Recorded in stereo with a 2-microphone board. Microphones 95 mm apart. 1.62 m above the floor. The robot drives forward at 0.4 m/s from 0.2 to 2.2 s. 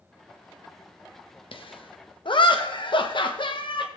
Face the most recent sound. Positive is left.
turn(degrees=55)  # may be behind; listen again after turning